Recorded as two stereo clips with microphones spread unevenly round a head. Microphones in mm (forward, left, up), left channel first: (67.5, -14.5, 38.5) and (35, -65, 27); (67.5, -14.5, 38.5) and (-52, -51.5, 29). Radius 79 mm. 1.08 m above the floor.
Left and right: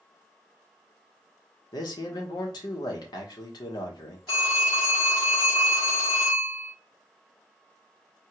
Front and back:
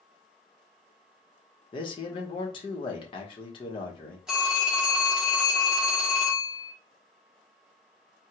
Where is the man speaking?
75° left, 1.0 m.